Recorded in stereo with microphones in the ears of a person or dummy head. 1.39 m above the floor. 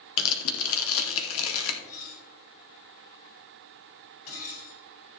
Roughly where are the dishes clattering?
Left.